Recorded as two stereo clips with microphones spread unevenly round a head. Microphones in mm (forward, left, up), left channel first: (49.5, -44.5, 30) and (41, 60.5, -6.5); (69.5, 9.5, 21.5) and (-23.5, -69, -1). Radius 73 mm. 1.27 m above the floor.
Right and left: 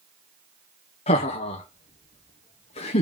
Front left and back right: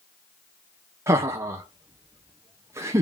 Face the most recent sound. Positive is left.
turn(degrees=-110)